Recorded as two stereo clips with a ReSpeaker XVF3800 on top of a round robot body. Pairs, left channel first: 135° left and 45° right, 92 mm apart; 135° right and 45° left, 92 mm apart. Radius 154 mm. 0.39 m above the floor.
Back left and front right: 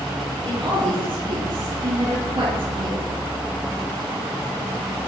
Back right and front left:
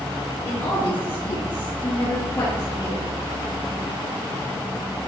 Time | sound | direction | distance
0.4 | a woman speaking | 70° right | 9 m